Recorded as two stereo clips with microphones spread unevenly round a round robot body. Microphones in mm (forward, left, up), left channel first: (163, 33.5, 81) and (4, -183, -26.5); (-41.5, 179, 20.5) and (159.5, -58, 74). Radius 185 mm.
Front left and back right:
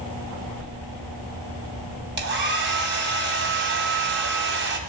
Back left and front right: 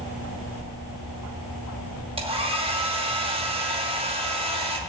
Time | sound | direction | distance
2.2 | a hair dryer | 130° right | 2 m